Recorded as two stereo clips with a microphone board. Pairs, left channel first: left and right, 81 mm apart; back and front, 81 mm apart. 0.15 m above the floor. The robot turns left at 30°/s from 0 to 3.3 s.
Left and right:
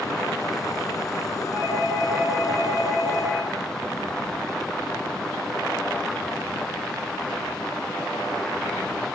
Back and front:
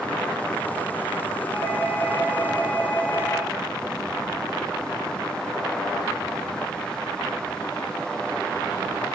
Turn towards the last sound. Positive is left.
turn(degrees=-90)